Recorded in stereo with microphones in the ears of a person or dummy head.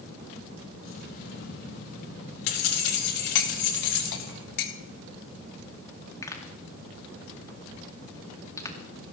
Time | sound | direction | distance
0.8 | keys jangling | 50° left (ahead or behind) | 2 m
3.4 | cutlery clinking | 55° left (ahead or behind) | 1.4 m
6.2 | a pop | 20° left (ahead or behind) | 2.5 m